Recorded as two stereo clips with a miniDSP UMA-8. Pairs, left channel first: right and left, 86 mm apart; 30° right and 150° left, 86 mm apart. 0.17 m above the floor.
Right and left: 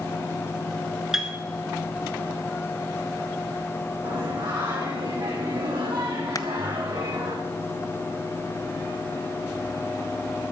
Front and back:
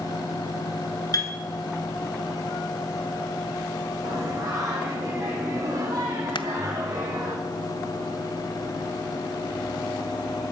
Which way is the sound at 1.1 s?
5° left.